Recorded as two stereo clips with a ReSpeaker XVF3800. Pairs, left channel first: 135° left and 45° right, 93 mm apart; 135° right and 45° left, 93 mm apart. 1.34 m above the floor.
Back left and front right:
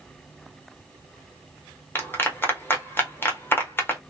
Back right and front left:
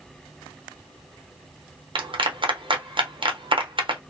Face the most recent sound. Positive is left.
turn(degrees=70)